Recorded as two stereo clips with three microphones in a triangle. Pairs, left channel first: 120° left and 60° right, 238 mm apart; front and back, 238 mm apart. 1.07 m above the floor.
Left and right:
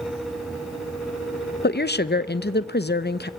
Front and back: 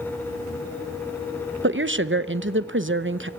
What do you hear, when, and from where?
1.6 s a woman speaking: 155° left, 0.7 m